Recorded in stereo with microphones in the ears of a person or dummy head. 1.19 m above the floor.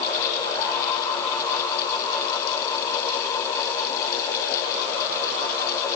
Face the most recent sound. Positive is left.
No sound to turn to.